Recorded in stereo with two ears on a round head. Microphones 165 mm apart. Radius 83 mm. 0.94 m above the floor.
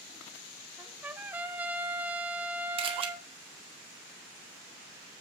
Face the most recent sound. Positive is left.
turn(degrees=-30)  # may be behind; listen again after turning